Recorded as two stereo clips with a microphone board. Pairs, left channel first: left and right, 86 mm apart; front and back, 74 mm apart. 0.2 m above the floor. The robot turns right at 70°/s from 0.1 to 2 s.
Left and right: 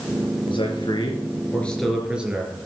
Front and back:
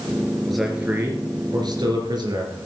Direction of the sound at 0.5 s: 85° left.